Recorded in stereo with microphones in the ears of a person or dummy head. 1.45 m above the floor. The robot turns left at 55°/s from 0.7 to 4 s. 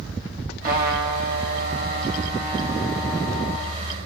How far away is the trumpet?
About 4.5 m.